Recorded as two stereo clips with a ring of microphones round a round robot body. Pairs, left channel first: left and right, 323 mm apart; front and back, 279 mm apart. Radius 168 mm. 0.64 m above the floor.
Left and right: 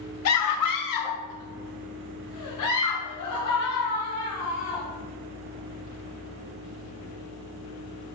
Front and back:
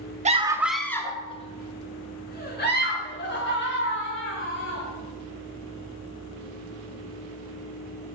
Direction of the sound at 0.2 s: 120° left.